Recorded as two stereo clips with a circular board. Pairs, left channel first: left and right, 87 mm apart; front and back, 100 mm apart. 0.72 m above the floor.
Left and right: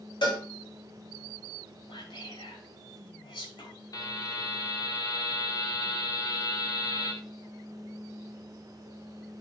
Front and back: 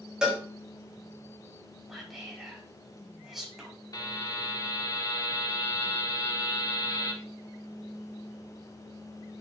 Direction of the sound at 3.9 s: 50° left.